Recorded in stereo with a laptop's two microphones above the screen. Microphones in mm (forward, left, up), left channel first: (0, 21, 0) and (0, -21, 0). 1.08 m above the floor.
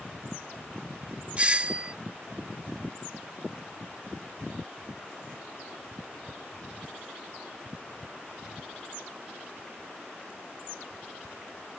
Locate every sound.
1.4 s a doorbell: 30° right (ahead or behind)